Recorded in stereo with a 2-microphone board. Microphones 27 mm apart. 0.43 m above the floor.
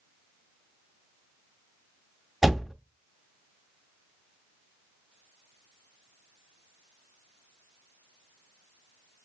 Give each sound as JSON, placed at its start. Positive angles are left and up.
{"t": 2.4, "sound": "a door slam", "side_deg": -10, "distance_m": 0.5}